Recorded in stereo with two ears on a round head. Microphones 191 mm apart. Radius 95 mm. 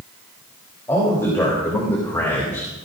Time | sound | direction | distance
0.9 | a man speaking | 15° left (ahead or behind) | 3.5 m